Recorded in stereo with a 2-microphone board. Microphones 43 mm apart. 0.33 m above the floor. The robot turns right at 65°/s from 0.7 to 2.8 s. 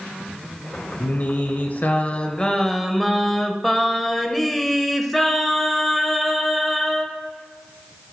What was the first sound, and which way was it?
Singing, 60° left.